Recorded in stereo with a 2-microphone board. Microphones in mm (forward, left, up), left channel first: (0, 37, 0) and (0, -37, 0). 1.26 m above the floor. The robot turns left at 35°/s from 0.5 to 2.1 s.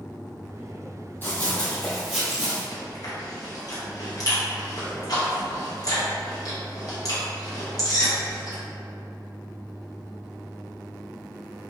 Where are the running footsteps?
30° left (ahead or behind), 1.9 m; by 2.6 s 10° right (ahead or behind), 1.3 m.